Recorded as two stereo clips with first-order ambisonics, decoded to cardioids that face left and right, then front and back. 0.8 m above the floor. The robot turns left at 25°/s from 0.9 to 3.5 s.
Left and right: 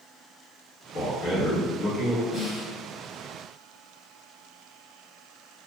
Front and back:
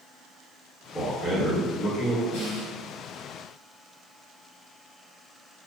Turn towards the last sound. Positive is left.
turn(degrees=-25)